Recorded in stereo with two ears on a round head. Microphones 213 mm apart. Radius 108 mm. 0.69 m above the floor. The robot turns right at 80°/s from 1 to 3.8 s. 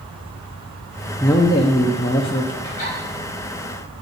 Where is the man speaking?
10° left (ahead or behind), 0.7 m; by 2.5 s 20° left (ahead or behind), 0.7 m.